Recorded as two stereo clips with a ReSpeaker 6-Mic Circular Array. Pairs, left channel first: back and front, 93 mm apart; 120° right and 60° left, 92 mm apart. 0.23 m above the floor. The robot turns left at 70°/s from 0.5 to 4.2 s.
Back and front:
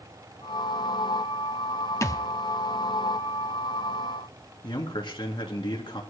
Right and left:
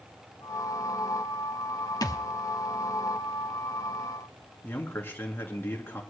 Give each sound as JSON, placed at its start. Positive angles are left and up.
{"t": 2.0, "sound": "a thud", "azimuth_deg": -140, "distance_m": 0.7}
{"t": 4.6, "sound": "a man speaking", "azimuth_deg": 175, "distance_m": 2.5}